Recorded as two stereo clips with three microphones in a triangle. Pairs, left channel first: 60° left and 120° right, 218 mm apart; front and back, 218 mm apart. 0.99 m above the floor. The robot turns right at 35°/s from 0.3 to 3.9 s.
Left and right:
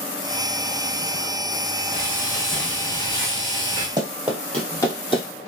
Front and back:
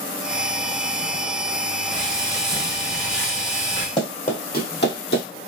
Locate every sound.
1.9 s frying: 50° right, 1.6 m; by 3.9 s 20° left, 1.6 m
4.0 s running footsteps: 55° right, 1.4 m; by 5.2 s 5° right, 1.9 m